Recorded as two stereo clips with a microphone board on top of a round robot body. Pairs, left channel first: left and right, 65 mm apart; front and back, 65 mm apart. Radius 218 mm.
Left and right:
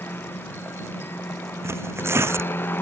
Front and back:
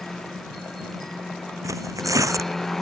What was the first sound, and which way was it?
A helicopter, 80° left.